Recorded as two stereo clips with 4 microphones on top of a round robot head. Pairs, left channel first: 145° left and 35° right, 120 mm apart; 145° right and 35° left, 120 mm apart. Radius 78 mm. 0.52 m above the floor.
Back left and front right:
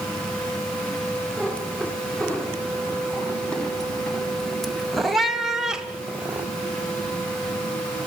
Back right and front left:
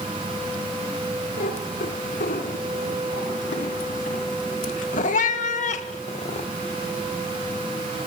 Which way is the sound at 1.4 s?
135° right.